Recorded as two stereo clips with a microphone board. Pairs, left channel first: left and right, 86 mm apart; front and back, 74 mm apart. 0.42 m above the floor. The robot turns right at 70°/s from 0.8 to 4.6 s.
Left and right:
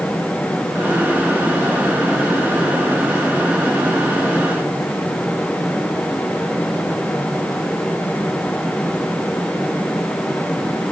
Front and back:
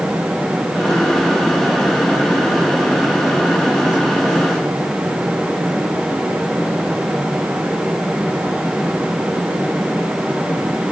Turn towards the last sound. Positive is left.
No sound to turn to.